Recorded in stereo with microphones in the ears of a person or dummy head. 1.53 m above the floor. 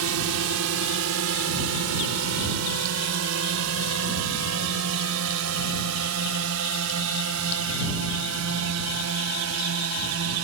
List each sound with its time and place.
0.0 s a drone: 85° right; by 10.4 s 75° right (ahead or behind)